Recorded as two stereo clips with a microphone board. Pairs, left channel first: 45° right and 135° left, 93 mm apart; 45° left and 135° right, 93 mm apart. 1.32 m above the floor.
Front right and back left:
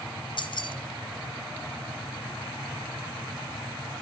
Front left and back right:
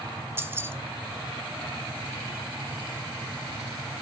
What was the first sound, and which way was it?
Keys jangling, 70° right.